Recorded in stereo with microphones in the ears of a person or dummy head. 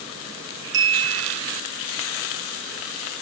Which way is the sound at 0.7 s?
25° right (ahead or behind).